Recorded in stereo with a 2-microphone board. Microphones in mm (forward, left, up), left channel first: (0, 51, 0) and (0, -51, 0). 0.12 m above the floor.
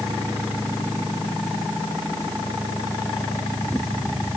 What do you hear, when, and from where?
Only background noise.